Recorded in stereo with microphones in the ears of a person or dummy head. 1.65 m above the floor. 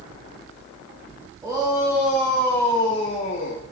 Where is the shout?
20° right (ahead or behind), 2.5 m; by 3.6 s 55° left (ahead or behind), 2 m.